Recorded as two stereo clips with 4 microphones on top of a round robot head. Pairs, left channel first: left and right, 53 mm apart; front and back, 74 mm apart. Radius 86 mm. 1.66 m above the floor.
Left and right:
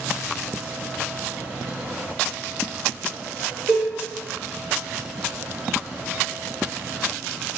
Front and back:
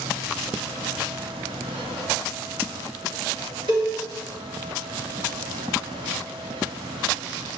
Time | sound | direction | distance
3.7 | a cowbell | 145° right | 2.0 m